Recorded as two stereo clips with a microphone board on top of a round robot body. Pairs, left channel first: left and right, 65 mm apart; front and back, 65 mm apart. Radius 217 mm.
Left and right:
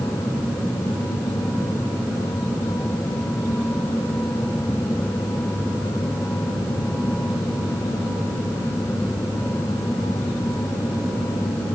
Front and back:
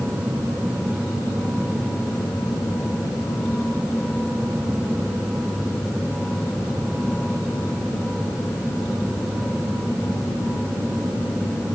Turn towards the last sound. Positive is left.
No sound to turn to.